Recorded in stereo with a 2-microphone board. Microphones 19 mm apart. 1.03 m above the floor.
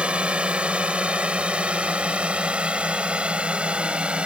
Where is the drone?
80° right; by 4.3 s 75° right (ahead or behind).